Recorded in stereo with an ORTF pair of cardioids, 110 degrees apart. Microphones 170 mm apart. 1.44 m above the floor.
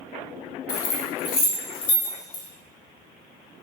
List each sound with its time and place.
0.7 s keys jangling: 65° left, 0.9 m